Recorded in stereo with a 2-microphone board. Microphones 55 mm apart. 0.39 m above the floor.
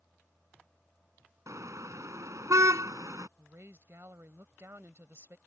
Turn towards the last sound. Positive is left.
turn(degrees=-50)  # may be behind; listen again after turning